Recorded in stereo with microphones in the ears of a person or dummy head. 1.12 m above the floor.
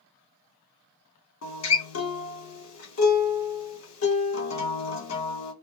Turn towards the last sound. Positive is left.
turn(degrees=65)  # may be behind; listen again after turning